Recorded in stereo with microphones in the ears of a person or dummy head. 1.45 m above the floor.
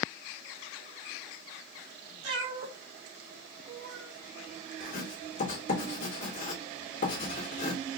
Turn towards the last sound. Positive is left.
turn(degrees=45)  # may be behind; listen again after turning